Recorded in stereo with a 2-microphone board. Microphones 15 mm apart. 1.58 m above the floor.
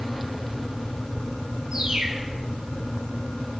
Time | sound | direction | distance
1.7 | a bird | 75° right (ahead or behind) | 4 m